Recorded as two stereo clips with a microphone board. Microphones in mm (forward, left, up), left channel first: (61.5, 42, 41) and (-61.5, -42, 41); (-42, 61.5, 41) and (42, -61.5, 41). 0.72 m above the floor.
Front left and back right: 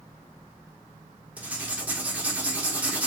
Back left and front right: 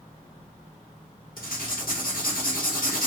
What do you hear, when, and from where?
1.4 s writing: 135° left, 0.8 m